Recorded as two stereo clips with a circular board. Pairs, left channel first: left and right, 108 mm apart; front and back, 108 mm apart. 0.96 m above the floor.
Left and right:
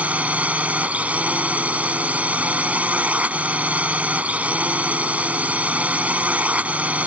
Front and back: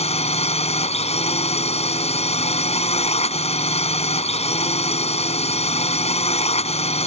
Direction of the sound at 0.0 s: 15° right.